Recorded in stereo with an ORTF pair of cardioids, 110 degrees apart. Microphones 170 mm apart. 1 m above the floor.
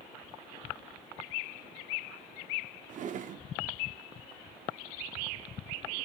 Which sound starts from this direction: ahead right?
A drawer, at 2.9 s.